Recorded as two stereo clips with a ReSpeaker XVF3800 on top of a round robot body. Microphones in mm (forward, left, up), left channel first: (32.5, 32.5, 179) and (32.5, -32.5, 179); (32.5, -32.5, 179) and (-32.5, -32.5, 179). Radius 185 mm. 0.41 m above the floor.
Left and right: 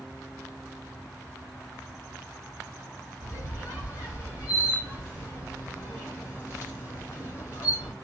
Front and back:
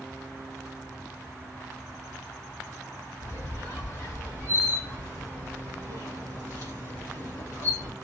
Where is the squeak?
40° left, 2.5 m.